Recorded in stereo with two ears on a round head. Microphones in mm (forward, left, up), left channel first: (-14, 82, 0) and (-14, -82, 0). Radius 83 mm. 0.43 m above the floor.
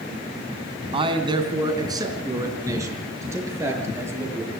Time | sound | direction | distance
0.9 | a man speaking | 30° right (ahead or behind) | 3 m